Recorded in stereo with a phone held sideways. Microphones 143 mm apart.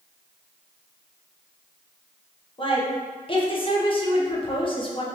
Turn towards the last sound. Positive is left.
turn(degrees=35)  # may be behind; listen again after turning